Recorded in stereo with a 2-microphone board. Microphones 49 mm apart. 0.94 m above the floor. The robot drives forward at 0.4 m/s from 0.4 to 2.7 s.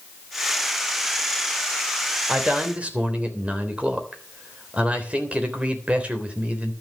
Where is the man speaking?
20° right (ahead or behind), 3.5 m; by 6.7 s 25° right (ahead or behind), 3 m.